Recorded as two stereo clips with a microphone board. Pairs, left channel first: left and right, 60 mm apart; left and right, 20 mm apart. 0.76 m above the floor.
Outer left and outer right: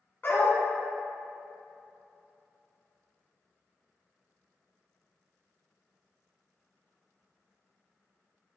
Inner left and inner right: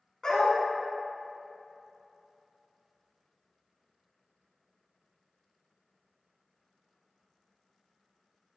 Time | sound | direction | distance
0.2 | a dog barking | 35° left (ahead or behind) | 1.7 m